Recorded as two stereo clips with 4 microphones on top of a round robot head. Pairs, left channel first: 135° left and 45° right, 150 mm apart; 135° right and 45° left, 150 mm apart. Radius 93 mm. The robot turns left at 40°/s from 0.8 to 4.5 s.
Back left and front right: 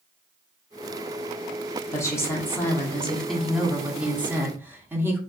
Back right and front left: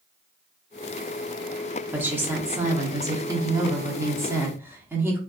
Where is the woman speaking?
105° left, 0.9 m; by 5.2 s straight ahead, 0.9 m.